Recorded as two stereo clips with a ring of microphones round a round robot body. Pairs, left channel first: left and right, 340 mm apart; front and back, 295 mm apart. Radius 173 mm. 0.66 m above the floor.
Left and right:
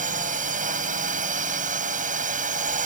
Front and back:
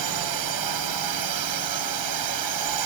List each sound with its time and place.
0.0 s a drone: 160° right